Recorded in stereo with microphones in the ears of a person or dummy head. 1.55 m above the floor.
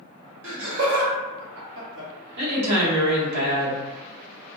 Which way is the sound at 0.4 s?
70° right (ahead or behind).